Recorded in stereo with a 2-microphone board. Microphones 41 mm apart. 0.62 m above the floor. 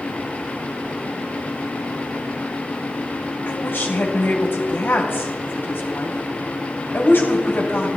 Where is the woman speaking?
60° left (ahead or behind), 3 m.